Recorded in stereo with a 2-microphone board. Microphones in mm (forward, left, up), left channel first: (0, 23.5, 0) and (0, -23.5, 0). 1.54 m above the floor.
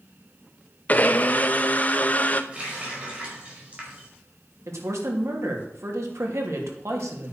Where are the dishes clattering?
No dishes clattering in this recording.